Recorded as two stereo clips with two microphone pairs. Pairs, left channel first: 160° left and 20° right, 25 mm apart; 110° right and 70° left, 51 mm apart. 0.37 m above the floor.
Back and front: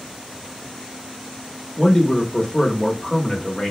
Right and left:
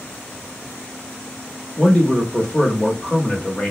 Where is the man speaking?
155° right, 0.9 m.